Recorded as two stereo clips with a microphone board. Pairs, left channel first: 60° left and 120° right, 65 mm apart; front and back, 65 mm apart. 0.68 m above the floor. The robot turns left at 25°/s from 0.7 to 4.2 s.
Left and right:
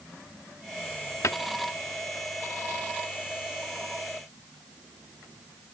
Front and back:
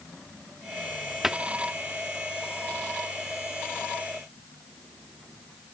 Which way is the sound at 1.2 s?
100° left.